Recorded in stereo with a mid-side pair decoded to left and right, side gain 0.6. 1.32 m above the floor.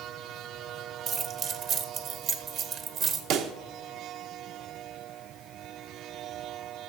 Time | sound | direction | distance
1.1 | keys jangling | 50° right | 1.1 m
3.3 | a pop | 60° right | 0.9 m